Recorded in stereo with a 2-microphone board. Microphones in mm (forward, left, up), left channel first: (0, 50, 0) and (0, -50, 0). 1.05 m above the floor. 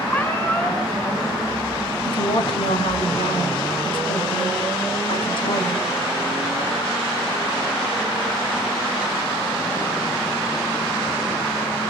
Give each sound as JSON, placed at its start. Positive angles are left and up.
{"t": 0.1, "sound": "a cat meowing", "side_deg": 20, "distance_m": 4.5}
{"t": 2.0, "sound": "a woman speaking", "side_deg": 60, "distance_m": 5.0}